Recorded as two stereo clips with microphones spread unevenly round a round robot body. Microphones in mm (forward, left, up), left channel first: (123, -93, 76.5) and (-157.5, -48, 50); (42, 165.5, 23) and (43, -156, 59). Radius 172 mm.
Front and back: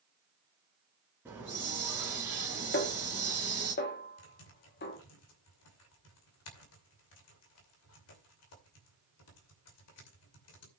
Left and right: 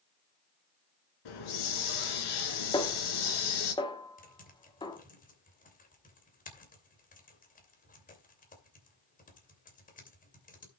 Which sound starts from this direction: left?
A hiss, at 1.2 s.